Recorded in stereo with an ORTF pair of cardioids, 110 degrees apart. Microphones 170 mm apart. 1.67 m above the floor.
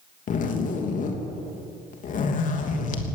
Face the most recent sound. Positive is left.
turn(degrees=50)